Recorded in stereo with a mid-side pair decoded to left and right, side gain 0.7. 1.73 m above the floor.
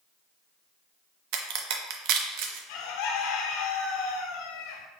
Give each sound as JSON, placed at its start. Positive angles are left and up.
{"t": 1.3, "sound": "a crack", "azimuth_deg": -65, "distance_m": 0.6}
{"t": 2.7, "sound": "a bird", "azimuth_deg": 70, "distance_m": 0.5}